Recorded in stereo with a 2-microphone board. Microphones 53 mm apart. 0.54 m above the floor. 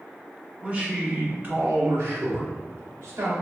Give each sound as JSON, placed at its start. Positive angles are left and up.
{"t": 0.6, "sound": "a man speaking", "side_deg": -20, "distance_m": 1.2}